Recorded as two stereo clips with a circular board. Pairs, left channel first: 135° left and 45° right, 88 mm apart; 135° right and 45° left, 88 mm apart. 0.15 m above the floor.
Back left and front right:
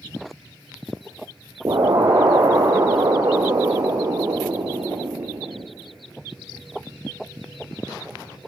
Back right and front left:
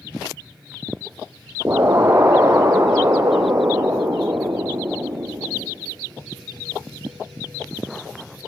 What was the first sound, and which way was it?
An explosion, 10° right.